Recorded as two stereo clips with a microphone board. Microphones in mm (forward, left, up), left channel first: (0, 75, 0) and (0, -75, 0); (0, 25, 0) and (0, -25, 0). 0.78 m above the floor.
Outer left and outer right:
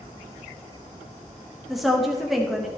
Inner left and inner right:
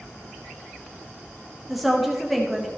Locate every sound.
1.7 s a woman speaking: centre (ahead or behind), 1.0 m